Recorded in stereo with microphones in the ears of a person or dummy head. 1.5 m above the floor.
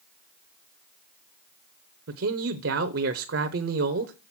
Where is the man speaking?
70° right (ahead or behind), 0.7 m.